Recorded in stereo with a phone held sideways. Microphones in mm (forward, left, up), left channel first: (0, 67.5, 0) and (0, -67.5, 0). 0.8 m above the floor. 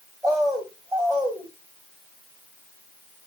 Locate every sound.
0.2 s a bird: 5° left (ahead or behind), 1.8 m